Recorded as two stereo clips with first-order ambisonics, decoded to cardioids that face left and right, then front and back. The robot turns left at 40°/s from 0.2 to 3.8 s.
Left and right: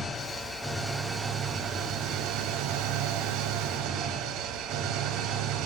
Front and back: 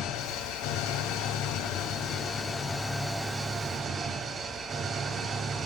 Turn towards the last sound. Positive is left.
turn(degrees=-120)